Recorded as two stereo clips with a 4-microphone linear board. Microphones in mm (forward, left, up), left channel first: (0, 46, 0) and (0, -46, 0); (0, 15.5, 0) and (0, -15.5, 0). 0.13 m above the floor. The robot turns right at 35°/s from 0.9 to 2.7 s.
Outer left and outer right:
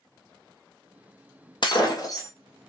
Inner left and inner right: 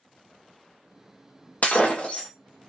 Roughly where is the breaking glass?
Left.